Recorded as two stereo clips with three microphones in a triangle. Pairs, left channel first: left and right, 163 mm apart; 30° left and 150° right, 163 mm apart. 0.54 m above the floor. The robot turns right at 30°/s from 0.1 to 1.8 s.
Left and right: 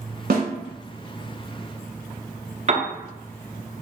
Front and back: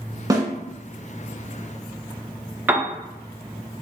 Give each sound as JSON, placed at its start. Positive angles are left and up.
{"t": 0.3, "sound": "a snare drum", "azimuth_deg": -85, "distance_m": 1.1}
{"t": 2.7, "sound": "a piano", "azimuth_deg": -75, "distance_m": 0.6}